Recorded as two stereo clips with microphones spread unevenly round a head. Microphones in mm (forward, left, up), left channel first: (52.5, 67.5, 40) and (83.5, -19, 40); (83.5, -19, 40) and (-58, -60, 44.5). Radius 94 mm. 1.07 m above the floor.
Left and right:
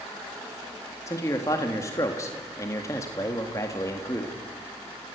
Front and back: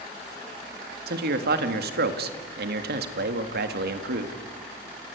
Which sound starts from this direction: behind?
A man speaking, at 1.1 s.